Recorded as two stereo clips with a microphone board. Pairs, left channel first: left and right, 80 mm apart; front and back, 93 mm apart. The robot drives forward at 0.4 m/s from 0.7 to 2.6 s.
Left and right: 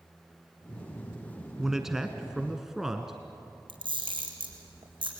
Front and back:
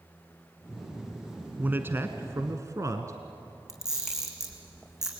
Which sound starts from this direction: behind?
A man speaking, at 1.6 s.